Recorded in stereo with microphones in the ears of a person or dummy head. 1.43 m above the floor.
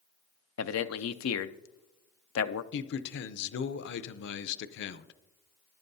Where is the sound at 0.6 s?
75° left (ahead or behind), 0.5 m.